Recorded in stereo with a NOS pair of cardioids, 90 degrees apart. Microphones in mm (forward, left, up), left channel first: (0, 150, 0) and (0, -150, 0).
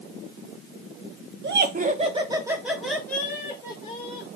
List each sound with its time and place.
1.4 s laughter: 40° right, 1.2 m; by 4.3 s 20° left, 2 m